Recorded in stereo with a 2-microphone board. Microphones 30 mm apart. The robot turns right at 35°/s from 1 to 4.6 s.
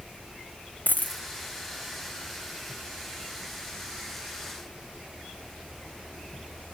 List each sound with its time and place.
0.9 s a dropped coin: 80° left, 0.7 m; by 1.2 s 85° left, 0.7 m